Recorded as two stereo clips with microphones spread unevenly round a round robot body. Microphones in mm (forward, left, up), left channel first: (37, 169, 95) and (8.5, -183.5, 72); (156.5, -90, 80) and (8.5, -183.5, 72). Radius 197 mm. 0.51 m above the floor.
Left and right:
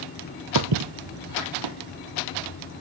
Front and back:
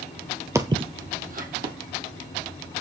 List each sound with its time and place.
0.6 s footsteps: 75° right, 0.6 m; by 1.8 s 120° right, 1.3 m